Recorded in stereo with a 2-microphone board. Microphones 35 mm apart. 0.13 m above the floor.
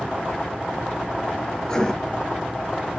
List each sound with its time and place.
1.6 s writing: 15° left (ahead or behind), 0.6 m